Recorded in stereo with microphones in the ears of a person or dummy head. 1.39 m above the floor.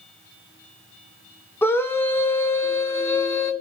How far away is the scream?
About 1.1 m.